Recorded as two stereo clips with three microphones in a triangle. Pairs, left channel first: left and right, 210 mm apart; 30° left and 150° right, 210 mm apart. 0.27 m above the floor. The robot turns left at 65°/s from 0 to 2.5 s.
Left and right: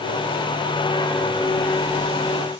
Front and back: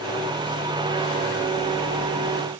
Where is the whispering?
I don't hear whispering.